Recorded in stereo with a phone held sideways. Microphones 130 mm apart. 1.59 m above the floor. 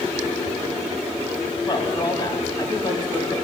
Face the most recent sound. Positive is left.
turn(degrees=35)  # may be behind; listen again after turning